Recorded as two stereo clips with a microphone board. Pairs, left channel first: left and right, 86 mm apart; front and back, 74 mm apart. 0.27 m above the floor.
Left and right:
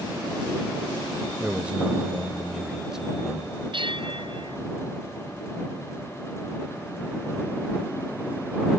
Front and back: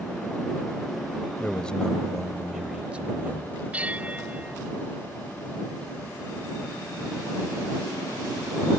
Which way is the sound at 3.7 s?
105° right.